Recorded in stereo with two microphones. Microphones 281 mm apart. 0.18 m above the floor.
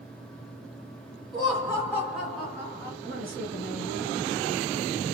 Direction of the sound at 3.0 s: 30° right (ahead or behind).